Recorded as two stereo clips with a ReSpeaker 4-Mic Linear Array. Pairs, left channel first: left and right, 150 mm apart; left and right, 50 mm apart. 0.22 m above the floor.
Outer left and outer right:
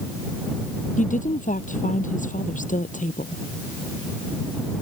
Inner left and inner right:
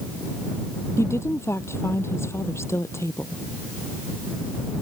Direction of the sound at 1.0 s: 55° left (ahead or behind).